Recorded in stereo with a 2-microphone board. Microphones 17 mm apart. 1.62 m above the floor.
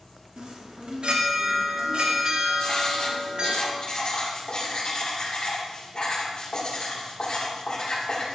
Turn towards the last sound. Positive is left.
turn(degrees=55)  # may be behind; listen again after turning